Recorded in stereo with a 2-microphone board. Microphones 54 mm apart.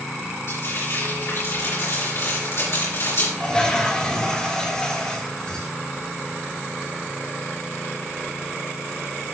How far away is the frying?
About 4.5 m.